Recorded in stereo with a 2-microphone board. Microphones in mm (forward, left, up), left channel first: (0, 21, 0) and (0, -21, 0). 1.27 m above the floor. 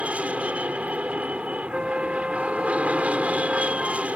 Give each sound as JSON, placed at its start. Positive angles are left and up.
{"t": 0.0, "sound": "an aircraft", "side_deg": -30}
{"t": 1.7, "sound": "a flute", "side_deg": -20}